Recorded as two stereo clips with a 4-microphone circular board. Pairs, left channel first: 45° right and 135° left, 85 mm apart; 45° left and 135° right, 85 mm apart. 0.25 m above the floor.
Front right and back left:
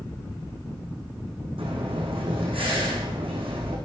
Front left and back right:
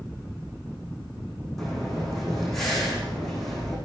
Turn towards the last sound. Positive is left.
turn(degrees=130)